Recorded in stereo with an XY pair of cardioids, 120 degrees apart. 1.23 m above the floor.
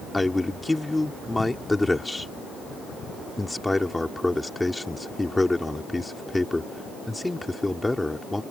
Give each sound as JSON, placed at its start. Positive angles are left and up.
{"t": 0.1, "sound": "a man speaking", "azimuth_deg": 10}